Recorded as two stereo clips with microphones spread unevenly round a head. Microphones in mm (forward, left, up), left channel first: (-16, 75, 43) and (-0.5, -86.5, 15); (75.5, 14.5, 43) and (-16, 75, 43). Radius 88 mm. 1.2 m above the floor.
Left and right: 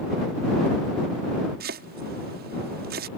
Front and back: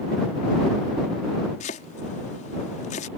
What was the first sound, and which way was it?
Chopping, 55° right.